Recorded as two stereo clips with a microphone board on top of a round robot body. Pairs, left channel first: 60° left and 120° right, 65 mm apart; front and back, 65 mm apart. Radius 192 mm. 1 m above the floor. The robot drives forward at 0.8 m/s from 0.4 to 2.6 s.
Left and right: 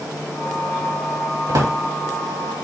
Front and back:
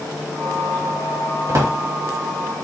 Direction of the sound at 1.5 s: 140° right.